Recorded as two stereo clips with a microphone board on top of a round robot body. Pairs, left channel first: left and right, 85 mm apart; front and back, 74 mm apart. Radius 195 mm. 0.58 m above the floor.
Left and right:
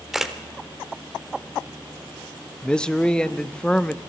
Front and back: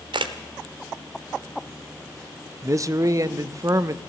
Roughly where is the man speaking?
Behind.